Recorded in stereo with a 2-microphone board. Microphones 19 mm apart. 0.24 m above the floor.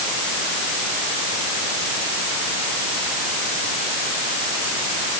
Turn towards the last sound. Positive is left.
No sound to turn to.